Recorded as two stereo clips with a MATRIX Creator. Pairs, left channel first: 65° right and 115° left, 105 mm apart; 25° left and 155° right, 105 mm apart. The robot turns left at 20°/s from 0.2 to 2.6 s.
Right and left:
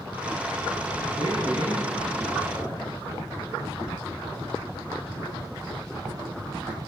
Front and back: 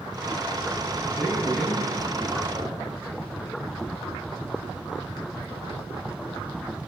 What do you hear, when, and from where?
1.0 s a man speaking: 65° right, 5 m; by 2.9 s 95° right, 5 m